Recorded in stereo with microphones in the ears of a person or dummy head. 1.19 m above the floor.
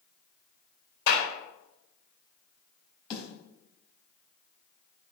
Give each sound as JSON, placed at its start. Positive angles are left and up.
{"t": 1.1, "sound": "a clap", "side_deg": 65, "distance_m": 4.5}
{"t": 3.1, "sound": "a snare drum", "side_deg": 30, "distance_m": 4.5}